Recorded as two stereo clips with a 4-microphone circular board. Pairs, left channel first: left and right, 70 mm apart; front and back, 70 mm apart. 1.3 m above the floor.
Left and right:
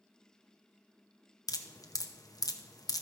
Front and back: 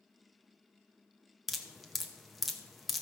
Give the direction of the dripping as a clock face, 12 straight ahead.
9 o'clock.